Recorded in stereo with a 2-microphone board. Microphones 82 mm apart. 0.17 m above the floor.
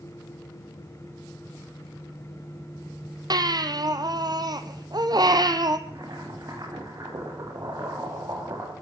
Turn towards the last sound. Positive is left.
turn(degrees=-45)  # may be behind; listen again after turning